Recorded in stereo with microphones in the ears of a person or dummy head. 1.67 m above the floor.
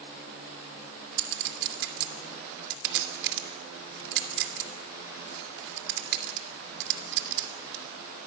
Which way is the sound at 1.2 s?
65° right (ahead or behind).